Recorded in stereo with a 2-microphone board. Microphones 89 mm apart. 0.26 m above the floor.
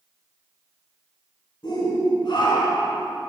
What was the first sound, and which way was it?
A shout, 60° left (ahead or behind).